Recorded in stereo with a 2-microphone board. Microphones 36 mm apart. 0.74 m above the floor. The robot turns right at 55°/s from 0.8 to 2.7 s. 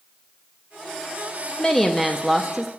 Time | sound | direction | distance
1.6 | a woman speaking | 150° left | 0.7 m